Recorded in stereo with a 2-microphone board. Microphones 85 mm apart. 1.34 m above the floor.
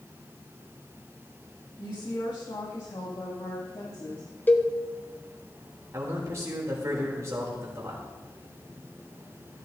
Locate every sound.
1.8 s a woman speaking: 60° left (ahead or behind), 2.5 m
4.5 s a cowbell: 20° left (ahead or behind), 0.8 m
5.9 s a man speaking: 40° right (ahead or behind), 3 m